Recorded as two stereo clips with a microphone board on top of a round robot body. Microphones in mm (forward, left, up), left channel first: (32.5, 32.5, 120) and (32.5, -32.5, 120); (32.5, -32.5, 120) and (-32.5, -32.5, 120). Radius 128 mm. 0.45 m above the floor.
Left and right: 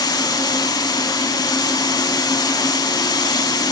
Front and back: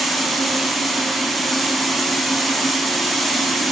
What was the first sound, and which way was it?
Running water, 90° left.